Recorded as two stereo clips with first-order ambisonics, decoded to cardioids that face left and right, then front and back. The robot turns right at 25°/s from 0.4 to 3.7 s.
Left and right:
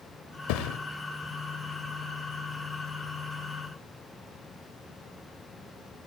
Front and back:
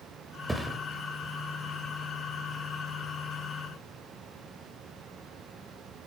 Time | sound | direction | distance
0.5 | a thud | 95° left | 1.0 m